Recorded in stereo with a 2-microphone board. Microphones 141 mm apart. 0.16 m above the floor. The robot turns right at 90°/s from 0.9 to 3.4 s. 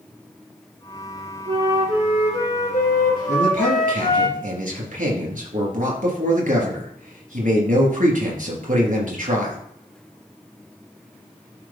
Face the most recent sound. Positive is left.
turn(degrees=-65)  # may be behind; listen again after turning